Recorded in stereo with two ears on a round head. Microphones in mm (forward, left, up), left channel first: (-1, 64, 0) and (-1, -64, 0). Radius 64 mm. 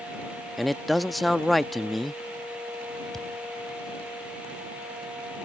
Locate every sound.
0.6 s a man speaking: centre (ahead or behind)
3.1 s a thud: centre (ahead or behind)